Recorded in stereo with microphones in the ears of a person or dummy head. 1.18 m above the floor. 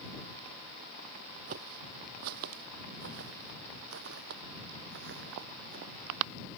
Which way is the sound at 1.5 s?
50° right (ahead or behind).